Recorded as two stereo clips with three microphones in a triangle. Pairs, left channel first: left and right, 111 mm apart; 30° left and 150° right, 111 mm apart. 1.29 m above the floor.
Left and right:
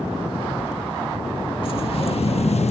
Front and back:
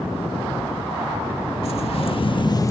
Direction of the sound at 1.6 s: 55° left.